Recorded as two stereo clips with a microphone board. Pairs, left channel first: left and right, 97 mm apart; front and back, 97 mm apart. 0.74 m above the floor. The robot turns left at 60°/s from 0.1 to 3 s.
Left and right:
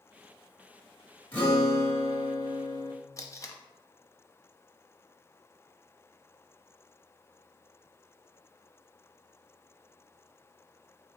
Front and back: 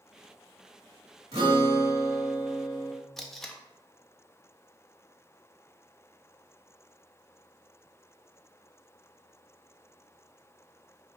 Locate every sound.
1.3 s a guitar: 160° left, 1.6 m; by 2.9 s 65° left, 1.6 m
3.2 s tape being pulled: 85° left, 0.5 m